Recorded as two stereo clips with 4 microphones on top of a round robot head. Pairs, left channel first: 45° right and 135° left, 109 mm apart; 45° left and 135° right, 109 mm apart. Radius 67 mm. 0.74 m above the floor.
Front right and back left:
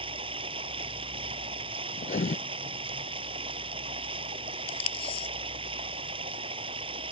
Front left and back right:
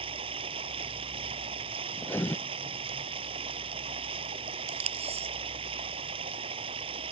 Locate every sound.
0.0 s running water: straight behind
2.0 s writing: 25° right
4.7 s tape being pulled: 95° right